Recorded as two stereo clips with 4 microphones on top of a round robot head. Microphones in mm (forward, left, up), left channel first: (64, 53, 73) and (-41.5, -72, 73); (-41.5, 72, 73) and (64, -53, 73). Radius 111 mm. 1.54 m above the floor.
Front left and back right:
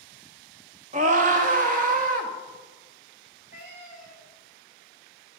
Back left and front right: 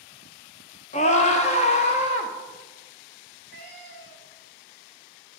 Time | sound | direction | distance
0.9 | a scream | straight behind | 0.5 m
3.5 | a cat meowing | 145° right | 1.8 m